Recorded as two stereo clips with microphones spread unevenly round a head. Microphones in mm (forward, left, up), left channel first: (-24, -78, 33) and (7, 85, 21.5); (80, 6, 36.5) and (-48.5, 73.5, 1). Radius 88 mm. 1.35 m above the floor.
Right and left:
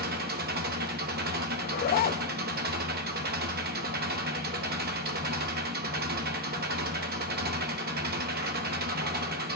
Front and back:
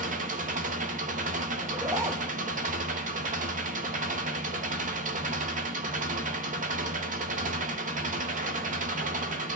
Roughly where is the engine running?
Behind left.